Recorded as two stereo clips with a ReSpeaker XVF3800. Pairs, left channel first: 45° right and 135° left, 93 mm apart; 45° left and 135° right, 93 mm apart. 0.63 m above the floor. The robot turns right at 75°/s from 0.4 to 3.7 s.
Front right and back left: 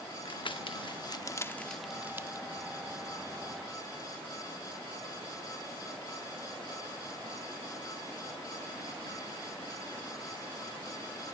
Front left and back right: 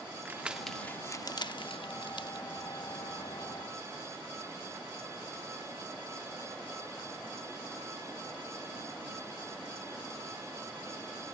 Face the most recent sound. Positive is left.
turn(degrees=-175)